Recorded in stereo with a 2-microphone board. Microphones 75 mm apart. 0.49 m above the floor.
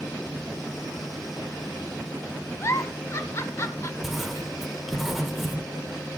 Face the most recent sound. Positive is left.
turn(degrees=-5)  # may be behind; listen again after turning